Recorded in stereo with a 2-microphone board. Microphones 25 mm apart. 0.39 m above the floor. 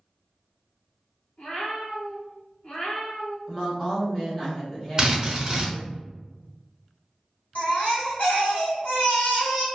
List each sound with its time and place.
1.4 s a cat meowing: 70° left (ahead or behind), 1.5 m; by 3.4 s 50° left (ahead or behind), 0.6 m
3.5 s a woman speaking: 20° left (ahead or behind), 0.9 m
5.0 s a drill: 30° right (ahead or behind), 0.8 m
7.5 s a baby crying: 60° left (ahead or behind), 1.5 m